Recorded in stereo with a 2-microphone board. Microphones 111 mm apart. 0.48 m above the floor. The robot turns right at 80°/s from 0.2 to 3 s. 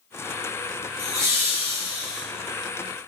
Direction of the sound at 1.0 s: 25° right (ahead or behind).